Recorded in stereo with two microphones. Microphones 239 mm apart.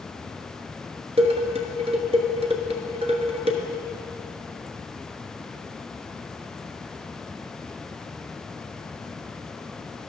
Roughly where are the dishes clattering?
Right.